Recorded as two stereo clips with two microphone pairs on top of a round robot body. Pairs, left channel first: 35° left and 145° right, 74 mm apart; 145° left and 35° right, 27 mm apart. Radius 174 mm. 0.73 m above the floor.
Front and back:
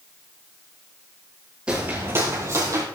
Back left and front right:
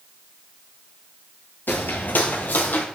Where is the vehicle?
No vehicle in this recording.